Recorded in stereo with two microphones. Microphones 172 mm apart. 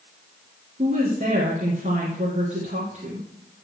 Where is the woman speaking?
45° right (ahead or behind), 2 m.